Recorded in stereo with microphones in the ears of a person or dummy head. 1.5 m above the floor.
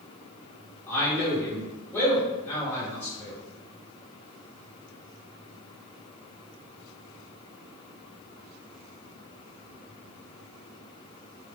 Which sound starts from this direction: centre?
A man speaking, at 0.9 s.